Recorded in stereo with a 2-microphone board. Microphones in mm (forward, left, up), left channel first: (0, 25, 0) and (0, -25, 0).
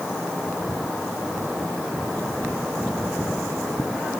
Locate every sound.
Only background noise.